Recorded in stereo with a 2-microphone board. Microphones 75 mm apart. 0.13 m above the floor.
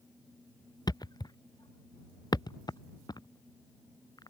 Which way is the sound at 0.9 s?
75° left (ahead or behind).